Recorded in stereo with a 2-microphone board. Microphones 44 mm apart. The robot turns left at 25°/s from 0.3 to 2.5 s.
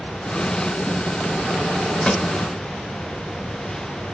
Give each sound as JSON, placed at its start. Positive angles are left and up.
{"t": 2.0, "sound": "a pop", "side_deg": 25, "distance_m": 0.5}